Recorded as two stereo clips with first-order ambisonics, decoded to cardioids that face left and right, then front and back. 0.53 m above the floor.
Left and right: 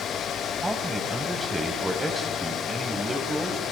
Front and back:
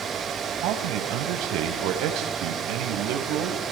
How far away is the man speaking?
About 3 m.